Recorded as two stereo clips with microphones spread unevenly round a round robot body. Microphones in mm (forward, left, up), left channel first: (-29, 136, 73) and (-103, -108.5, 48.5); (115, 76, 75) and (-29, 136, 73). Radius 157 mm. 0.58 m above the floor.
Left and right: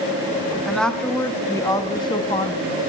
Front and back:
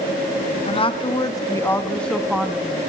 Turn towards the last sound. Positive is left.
turn(degrees=105)